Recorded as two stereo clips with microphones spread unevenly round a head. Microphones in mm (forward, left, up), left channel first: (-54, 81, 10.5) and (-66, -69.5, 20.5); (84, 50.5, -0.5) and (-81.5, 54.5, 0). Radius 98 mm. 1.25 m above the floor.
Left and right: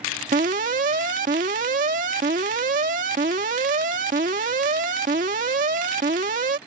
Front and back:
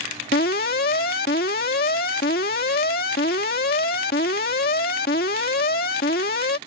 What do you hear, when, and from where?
0.3 s an alarm: 45° right